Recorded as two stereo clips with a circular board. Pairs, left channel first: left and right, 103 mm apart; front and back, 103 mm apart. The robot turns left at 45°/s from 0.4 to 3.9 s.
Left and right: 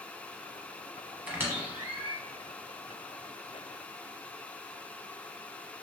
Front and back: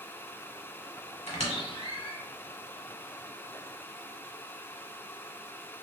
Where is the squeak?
10° right, 1.0 m; by 2.2 s 55° right, 1.0 m.